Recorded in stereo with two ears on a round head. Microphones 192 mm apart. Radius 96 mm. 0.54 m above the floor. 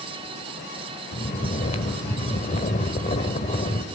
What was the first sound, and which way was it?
Snoring, 35° left (ahead or behind).